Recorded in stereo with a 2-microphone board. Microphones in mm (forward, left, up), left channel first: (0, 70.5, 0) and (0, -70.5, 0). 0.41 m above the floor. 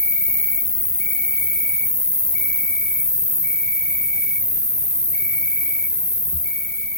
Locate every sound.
0.0 s an insect: 5° right (ahead or behind), 1.0 m